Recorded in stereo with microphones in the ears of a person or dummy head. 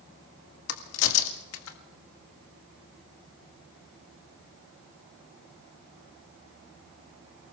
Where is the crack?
75° left (ahead or behind), 1.9 m.